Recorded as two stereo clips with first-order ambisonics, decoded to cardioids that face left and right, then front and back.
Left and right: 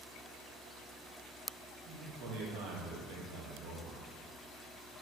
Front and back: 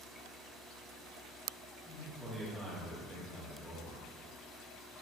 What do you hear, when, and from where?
1.9 s a man speaking: 90° right, 0.9 m